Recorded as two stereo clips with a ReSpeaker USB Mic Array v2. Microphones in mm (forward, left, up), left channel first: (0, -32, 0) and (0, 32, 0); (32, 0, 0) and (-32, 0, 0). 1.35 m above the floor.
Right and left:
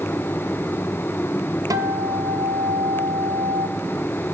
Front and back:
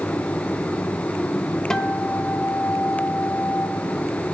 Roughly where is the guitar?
Left.